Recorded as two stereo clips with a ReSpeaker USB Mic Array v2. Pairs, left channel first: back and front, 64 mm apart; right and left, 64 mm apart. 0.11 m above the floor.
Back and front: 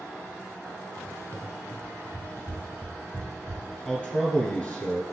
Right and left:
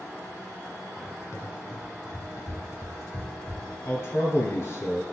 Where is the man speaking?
120° right, 1.7 m.